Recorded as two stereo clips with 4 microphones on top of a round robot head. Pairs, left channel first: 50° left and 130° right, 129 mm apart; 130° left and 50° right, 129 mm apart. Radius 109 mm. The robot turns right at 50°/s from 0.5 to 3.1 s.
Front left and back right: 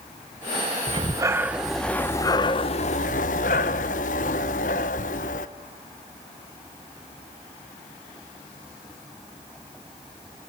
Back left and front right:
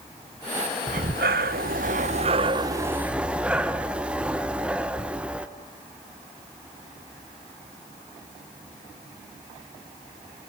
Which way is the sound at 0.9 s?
80° right.